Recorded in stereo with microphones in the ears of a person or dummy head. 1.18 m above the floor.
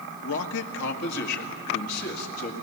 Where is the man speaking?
70° left (ahead or behind), 1.4 m; by 2.6 s 50° left (ahead or behind), 2.5 m.